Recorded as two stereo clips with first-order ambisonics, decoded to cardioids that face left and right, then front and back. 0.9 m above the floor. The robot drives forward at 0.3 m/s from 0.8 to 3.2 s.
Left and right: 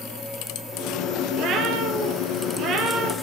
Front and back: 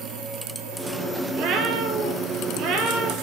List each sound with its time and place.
1.3 s a cat meowing: 135° right, 4.5 m; by 3.1 s 140° right, 5 m